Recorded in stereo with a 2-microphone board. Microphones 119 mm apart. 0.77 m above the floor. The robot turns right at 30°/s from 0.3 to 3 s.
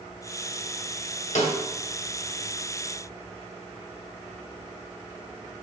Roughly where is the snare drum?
Left.